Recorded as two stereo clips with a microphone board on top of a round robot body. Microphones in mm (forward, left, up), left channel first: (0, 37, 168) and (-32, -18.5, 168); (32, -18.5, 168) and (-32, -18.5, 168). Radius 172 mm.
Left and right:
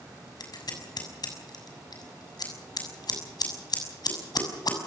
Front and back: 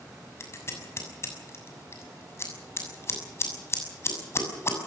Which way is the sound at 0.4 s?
50° left.